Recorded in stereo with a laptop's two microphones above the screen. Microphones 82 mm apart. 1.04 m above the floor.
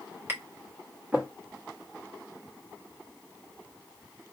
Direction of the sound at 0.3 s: 25° right (ahead or behind).